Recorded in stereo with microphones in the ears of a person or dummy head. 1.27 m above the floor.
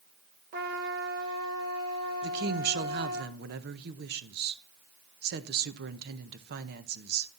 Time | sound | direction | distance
0.5 | a trumpet | 50° right (ahead or behind) | 1.5 m
2.2 | a woman speaking | 55° right (ahead or behind) | 0.8 m